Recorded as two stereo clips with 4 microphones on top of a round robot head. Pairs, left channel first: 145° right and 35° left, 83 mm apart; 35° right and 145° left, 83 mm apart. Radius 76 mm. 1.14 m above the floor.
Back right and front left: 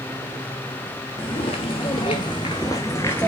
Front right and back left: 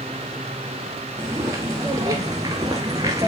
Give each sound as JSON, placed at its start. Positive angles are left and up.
{"t": 1.2, "sound": "footsteps", "azimuth_deg": -155, "distance_m": 1.7}